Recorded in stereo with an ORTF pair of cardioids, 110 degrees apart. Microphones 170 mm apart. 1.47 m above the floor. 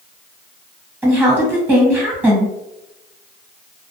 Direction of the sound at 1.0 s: 10° right.